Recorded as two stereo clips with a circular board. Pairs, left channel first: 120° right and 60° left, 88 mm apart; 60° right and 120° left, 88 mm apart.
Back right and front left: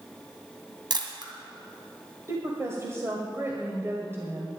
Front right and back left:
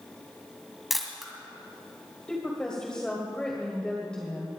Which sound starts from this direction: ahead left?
A camera shutter, at 0.9 s.